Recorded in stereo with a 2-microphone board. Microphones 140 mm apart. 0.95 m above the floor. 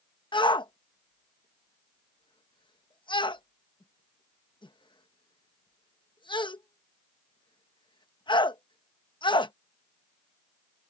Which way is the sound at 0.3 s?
35° left (ahead or behind).